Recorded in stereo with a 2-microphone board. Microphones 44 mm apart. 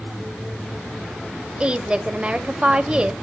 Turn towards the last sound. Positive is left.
turn(degrees=-20)  # may be behind; listen again after turning